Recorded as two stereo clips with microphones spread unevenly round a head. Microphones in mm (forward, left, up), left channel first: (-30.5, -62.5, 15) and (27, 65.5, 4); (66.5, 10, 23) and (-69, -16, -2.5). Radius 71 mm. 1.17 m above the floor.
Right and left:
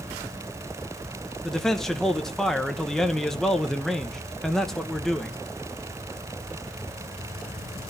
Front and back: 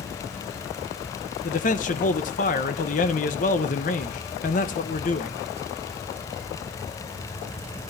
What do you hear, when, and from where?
1.4 s a man speaking: 25° right, 1.0 m